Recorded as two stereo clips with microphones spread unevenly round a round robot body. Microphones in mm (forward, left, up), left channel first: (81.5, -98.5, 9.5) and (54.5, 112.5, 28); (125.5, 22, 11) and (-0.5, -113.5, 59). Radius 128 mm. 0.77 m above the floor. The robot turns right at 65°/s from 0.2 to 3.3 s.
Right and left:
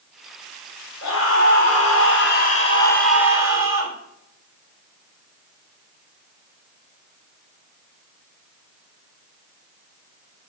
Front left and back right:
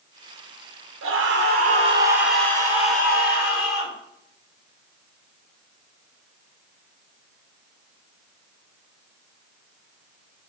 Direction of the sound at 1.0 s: 130° right.